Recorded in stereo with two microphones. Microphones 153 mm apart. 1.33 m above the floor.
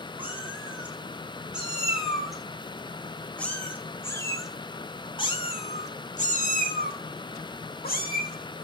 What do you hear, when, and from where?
0.2 s a cat meowing: 10° right (ahead or behind), 5 m; by 8.7 s 75° left (ahead or behind), 3 m